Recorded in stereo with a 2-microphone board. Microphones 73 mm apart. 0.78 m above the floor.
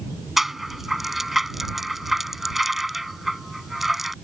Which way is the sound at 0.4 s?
5° right (ahead or behind).